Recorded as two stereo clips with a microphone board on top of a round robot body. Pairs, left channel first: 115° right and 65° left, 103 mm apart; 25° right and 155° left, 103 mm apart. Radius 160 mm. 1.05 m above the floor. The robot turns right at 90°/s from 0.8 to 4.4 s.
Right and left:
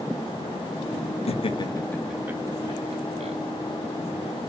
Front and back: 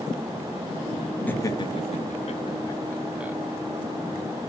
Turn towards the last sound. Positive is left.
turn(degrees=-175)